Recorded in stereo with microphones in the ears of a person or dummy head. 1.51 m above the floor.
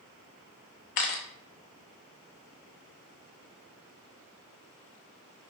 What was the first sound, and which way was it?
A camera shutter, 40° left (ahead or behind).